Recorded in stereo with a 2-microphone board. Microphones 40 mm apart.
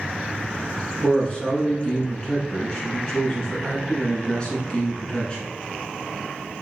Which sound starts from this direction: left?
A man speaking, at 1.0 s.